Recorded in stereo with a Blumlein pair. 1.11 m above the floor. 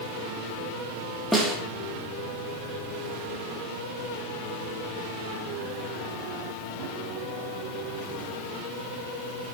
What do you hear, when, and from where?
1.3 s a snare drum: straight ahead, 2.5 m